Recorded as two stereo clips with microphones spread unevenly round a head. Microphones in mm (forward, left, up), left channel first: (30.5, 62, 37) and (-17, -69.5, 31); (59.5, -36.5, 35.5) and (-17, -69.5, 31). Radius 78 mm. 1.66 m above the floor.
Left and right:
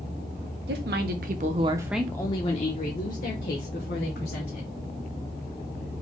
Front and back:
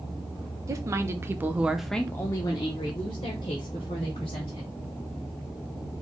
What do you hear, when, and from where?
0.7 s a woman speaking: 110° right, 1.0 m; by 4.7 s 60° left, 2 m